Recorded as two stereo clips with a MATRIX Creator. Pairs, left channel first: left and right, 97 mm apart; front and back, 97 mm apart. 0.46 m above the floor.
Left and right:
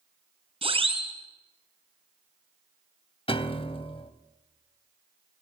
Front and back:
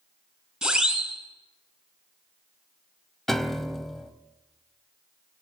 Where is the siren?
95° right, 6 m.